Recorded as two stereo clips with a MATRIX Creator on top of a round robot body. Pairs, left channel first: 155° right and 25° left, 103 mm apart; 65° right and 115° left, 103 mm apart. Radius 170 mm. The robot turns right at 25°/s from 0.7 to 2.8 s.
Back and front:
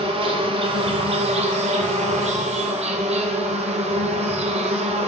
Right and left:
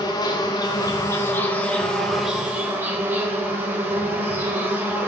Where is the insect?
15° right, 0.8 m; by 5.1 s 40° left, 0.8 m.